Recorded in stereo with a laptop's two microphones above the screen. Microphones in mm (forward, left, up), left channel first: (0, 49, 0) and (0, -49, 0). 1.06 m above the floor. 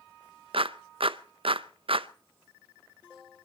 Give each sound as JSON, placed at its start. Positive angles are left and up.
{"t": 0.5, "sound": "a clap", "side_deg": -65, "distance_m": 0.5}